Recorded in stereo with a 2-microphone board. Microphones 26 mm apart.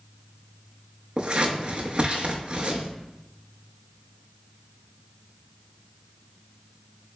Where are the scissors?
40° right (ahead or behind), 0.6 m.